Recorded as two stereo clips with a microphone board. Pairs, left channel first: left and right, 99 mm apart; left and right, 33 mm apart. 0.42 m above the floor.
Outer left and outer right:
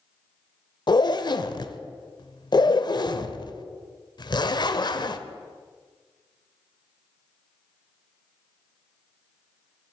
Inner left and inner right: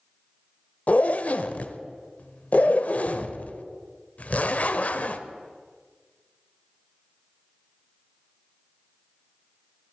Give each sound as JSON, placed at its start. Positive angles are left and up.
{"t": 0.9, "sound": "a zipper", "side_deg": 50, "distance_m": 0.8}